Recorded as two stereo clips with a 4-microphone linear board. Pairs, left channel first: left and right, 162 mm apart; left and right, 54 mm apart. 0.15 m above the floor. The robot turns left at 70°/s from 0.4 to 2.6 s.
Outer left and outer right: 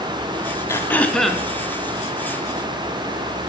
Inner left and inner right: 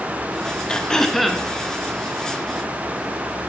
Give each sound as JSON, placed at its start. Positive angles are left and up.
{"t": 0.7, "sound": "throat clearing", "side_deg": 15, "distance_m": 0.6}